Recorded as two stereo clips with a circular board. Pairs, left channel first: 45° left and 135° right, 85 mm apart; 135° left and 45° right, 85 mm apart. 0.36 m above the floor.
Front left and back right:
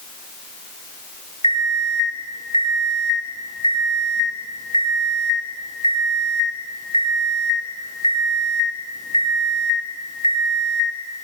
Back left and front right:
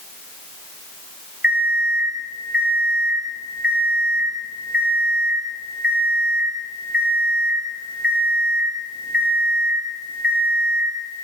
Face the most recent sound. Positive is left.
turn(degrees=30)